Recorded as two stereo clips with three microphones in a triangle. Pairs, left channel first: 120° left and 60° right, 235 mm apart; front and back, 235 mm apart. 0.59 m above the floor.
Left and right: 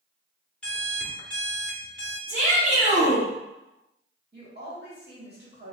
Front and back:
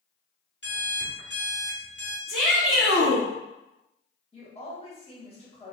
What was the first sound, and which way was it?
An alarm clock, 35° left.